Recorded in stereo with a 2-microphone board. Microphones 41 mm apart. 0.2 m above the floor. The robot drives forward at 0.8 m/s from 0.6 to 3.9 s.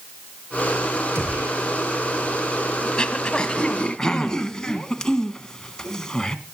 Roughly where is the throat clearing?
Left.